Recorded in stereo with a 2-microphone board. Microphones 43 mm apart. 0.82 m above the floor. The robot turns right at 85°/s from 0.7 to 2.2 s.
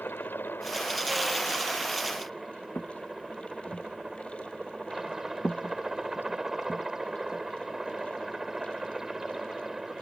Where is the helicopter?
65° left; by 10.0 s 170° right.